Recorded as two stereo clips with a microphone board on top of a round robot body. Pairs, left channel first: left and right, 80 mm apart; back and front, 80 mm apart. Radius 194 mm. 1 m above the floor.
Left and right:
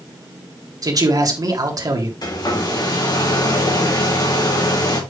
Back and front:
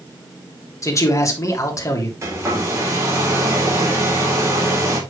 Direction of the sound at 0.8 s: 130° right.